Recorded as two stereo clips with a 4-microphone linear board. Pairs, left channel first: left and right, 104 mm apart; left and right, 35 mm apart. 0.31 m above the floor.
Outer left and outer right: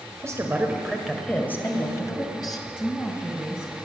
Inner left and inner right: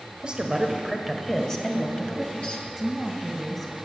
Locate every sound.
0.2 s a woman speaking: 30° right (ahead or behind), 1.5 m; by 2.7 s 40° left (ahead or behind), 2.5 m
2.8 s a woman speaking: 15° left (ahead or behind), 2 m